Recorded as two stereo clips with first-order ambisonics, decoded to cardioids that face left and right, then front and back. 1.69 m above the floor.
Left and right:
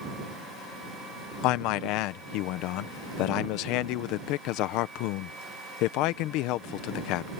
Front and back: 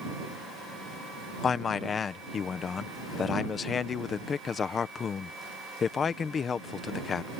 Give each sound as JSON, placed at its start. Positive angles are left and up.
{"t": 1.4, "sound": "a man speaking", "azimuth_deg": 65}